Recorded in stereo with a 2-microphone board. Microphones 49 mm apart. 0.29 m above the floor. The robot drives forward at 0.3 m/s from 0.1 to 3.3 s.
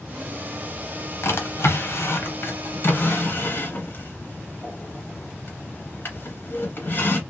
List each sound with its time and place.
1.2 s a drawer: 65° left (ahead or behind), 1.1 m; by 7.2 s 45° left (ahead or behind), 1.4 m